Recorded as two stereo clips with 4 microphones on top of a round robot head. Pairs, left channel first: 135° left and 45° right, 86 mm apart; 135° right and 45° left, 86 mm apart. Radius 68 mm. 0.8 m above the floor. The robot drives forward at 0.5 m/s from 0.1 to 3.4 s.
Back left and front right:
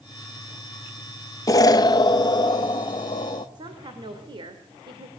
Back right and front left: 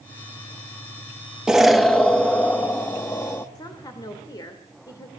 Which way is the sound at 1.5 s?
125° left.